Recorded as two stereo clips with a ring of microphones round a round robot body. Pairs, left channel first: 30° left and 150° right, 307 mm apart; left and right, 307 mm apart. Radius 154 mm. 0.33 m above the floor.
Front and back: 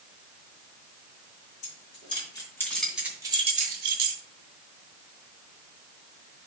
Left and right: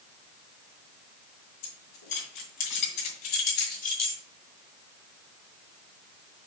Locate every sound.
1.6 s keys jangling: 95° left, 3.5 m; by 4.2 s 170° left, 1.9 m